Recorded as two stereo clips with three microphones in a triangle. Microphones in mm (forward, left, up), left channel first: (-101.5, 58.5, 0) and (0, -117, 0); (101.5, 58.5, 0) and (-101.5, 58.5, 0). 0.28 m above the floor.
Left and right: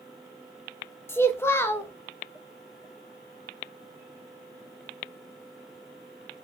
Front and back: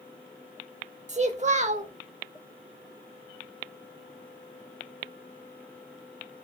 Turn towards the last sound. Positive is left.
turn(degrees=-170)